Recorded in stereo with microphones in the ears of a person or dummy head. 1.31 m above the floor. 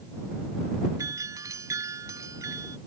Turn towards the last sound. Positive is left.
turn(degrees=-15)  # may be behind; listen again after turning